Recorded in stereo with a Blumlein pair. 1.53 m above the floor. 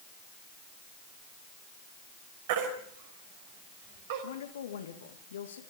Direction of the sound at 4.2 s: 65° left.